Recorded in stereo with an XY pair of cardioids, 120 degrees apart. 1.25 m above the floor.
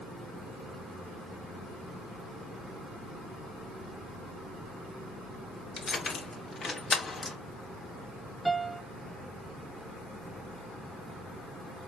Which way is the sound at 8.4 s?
Straight ahead.